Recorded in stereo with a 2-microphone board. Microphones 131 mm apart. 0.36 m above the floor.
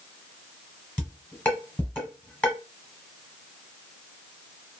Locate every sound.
1.0 s dishes clattering: 10° left (ahead or behind), 1.1 m